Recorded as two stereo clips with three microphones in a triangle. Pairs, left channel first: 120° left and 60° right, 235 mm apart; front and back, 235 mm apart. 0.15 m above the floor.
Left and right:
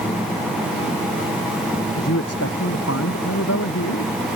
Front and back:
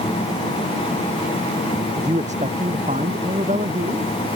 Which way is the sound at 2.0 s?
120° left.